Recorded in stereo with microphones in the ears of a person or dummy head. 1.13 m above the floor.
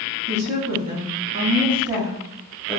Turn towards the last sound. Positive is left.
turn(degrees=5)  # may be behind; listen again after turning